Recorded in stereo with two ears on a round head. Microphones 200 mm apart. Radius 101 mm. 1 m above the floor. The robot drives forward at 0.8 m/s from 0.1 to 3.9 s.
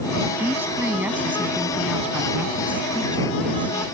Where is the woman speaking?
10° right (ahead or behind); by 3.9 s 5° right (ahead or behind).